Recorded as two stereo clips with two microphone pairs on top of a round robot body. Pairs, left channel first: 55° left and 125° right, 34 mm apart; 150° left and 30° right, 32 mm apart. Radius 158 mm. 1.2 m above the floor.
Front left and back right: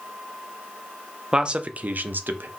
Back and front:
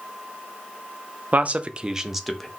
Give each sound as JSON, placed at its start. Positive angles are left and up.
{"t": 1.3, "sound": "a man speaking", "azimuth_deg": -60, "distance_m": 0.5}